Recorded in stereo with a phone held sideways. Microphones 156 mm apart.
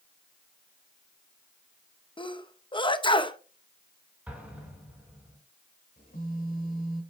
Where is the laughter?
I don't hear laughter.